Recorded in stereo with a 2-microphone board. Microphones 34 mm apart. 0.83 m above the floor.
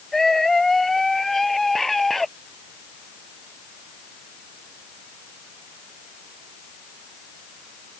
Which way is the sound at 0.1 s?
10° left (ahead or behind).